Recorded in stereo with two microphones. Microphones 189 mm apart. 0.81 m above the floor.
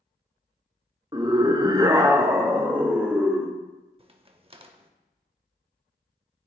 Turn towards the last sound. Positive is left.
turn(degrees=-30)  # may be behind; listen again after turning